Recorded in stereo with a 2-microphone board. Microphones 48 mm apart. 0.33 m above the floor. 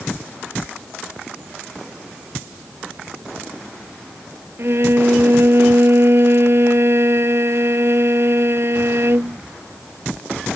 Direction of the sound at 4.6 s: 55° right (ahead or behind).